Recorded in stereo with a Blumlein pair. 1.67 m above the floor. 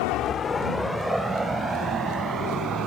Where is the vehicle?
45° left; by 2.9 s 25° right.